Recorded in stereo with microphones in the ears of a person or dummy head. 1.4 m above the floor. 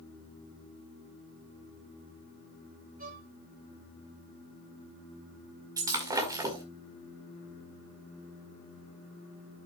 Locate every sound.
3.0 s a violin: 45° right (ahead or behind), 3 m
5.8 s breaking glass: 20° right (ahead or behind), 1.8 m